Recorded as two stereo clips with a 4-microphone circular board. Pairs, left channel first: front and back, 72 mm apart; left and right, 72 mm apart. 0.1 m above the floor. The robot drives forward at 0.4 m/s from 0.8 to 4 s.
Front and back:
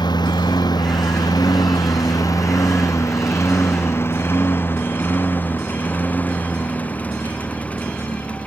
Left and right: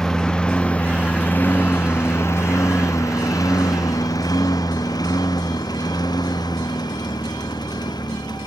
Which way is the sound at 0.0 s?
5° left.